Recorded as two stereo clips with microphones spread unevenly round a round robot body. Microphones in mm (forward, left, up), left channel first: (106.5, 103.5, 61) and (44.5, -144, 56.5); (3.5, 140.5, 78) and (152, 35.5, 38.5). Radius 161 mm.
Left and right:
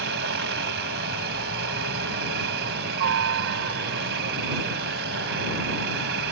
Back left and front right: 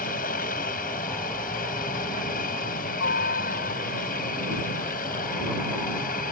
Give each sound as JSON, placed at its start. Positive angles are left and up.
{"t": 0.0, "sound": "a helicopter", "azimuth_deg": -155}